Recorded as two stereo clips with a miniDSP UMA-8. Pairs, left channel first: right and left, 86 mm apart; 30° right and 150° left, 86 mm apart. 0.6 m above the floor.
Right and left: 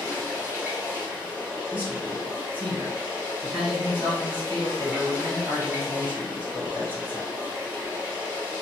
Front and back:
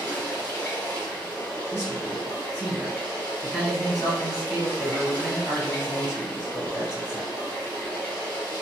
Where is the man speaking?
75° left, 1.6 m.